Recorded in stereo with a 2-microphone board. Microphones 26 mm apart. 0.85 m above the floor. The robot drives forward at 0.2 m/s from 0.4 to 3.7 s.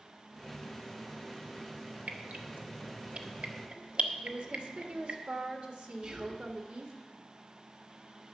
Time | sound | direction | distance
2.1 | dripping | 65° right (ahead or behind) | 1.0 m
4.2 | a woman speaking | 65° right (ahead or behind) | 1.6 m
6.0 | whispering | 50° right (ahead or behind) | 1.6 m